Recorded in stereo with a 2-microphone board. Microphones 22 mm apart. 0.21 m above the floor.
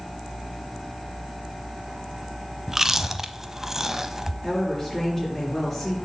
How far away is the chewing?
About 0.5 m.